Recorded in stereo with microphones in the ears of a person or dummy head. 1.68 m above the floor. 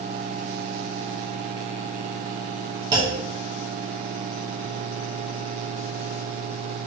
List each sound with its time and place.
2.9 s a clunk: 25° right (ahead or behind), 1.1 m